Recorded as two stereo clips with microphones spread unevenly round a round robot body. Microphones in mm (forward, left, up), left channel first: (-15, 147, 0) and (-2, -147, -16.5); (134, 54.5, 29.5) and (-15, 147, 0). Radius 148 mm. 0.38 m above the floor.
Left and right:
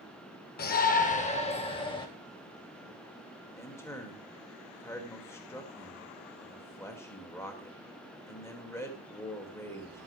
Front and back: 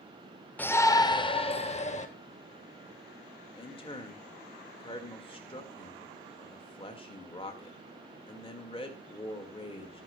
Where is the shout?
55° left, 0.9 m; by 2.1 s 15° left, 1.4 m.